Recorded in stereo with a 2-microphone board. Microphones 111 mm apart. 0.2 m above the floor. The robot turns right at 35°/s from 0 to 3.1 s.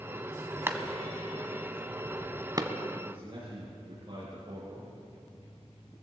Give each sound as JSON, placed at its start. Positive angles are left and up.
{"t": 0.7, "sound": "a clap", "side_deg": -20, "distance_m": 1.0}
{"t": 3.0, "sound": "a man speaking", "side_deg": -45, "distance_m": 6.0}